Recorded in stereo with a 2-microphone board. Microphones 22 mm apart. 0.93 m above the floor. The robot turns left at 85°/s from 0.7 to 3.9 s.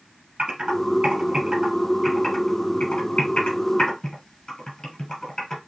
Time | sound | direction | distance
0.4 | typing on a keyboard | 60° right (ahead or behind) | 3 m